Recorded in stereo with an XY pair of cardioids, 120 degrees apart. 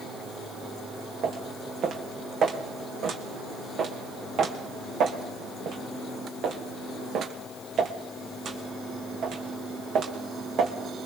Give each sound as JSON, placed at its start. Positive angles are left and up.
{"t": 1.2, "sound": "footsteps", "azimuth_deg": -55, "distance_m": 3.5}